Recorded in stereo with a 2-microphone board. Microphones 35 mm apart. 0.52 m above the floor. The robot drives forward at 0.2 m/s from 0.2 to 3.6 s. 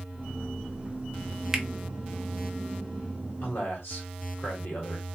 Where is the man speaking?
65° left (ahead or behind), 1.8 m.